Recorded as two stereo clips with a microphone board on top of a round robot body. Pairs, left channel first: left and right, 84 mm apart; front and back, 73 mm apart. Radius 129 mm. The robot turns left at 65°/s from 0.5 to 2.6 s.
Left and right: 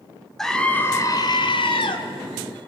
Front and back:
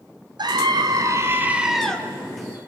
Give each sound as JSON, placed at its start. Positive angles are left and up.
{"t": 0.4, "sound": "a scream", "azimuth_deg": 175, "distance_m": 2.5}